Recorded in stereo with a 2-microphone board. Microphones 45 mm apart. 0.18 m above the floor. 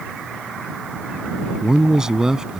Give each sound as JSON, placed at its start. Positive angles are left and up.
{"t": 1.6, "sound": "a man speaking", "side_deg": -10}